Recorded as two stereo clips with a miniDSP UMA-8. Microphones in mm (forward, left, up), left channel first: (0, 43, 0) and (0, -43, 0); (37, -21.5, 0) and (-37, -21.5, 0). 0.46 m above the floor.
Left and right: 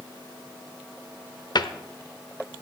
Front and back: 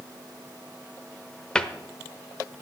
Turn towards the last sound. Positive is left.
turn(degrees=75)